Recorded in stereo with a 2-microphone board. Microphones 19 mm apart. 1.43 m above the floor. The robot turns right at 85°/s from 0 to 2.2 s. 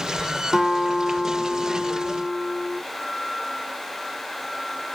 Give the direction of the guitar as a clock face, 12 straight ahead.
2 o'clock.